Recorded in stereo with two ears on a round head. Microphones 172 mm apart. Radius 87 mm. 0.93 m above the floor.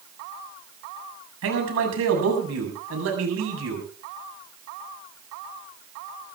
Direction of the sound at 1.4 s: 75° right (ahead or behind).